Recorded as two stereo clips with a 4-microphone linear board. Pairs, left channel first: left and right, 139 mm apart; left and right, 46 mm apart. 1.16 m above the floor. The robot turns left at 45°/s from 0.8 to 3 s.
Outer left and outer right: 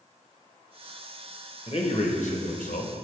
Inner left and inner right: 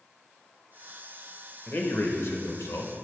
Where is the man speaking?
140° left, 0.8 m; by 2.9 s 80° left, 0.8 m.